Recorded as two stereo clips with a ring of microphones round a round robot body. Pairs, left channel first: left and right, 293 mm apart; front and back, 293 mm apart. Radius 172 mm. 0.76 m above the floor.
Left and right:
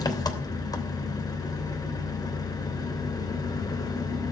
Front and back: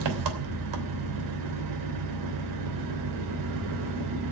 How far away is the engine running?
About 3 m.